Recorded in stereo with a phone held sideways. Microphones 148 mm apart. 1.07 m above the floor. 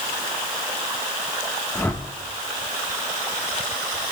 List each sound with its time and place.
1.8 s a whoosh: 15° left (ahead or behind), 1.2 m